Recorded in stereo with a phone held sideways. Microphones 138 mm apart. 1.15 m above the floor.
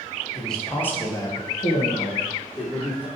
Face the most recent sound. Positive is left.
turn(degrees=35)  # may be behind; listen again after turning